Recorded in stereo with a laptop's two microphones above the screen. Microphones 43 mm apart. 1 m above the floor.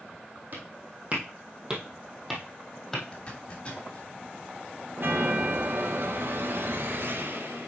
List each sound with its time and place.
0.5 s footsteps: 45° right (ahead or behind), 2.5 m; by 3.0 s 10° left (ahead or behind), 2 m
3.1 s a zipper: 25° left (ahead or behind), 1.5 m
5.0 s a chime: 55° right (ahead or behind), 1.0 m